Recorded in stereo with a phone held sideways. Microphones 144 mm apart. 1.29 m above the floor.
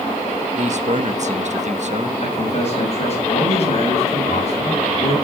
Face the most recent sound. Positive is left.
turn(degrees=50)  # may be behind; listen again after turning